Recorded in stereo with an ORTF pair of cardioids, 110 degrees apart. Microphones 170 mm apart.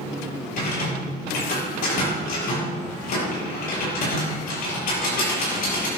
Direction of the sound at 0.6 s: 65° left.